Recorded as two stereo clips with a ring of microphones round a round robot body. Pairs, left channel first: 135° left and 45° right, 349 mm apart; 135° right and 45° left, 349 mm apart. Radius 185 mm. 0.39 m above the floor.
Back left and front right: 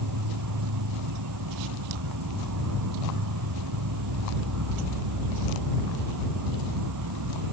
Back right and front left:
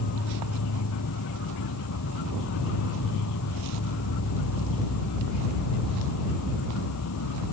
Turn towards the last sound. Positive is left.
turn(degrees=-85)